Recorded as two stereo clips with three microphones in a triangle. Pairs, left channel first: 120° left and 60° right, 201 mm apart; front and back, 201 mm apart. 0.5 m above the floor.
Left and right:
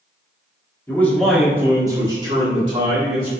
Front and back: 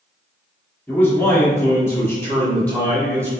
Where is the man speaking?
65° left, 1.4 m; by 3.3 s 75° right, 1.9 m.